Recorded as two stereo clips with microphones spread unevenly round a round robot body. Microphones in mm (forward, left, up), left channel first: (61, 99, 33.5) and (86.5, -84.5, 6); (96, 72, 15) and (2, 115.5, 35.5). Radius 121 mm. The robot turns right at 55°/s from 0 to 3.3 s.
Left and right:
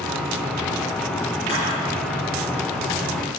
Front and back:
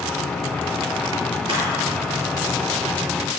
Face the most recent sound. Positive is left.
turn(degrees=-145)